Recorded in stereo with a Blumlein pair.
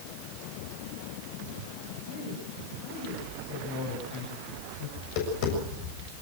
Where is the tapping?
45° left, 7 m.